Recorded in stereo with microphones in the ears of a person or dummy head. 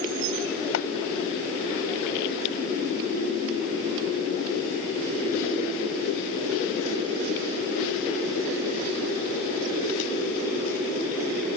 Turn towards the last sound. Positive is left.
turn(degrees=75)  # may be behind; listen again after turning